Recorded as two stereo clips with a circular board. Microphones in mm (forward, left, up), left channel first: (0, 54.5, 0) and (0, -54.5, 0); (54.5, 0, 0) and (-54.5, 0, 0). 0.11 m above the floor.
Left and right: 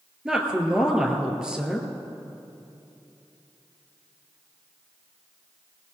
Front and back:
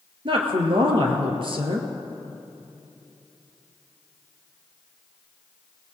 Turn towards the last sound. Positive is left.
turn(degrees=-170)